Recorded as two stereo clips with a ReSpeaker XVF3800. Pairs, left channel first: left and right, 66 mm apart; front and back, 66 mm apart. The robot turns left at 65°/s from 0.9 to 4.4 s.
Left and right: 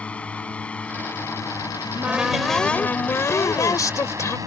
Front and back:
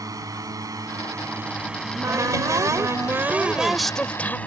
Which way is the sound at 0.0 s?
160° left.